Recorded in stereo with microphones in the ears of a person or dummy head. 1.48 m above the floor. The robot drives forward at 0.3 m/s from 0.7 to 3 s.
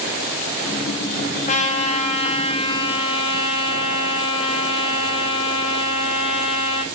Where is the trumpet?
35° left (ahead or behind), 1.5 m; by 6.8 s 30° left (ahead or behind), 1.9 m.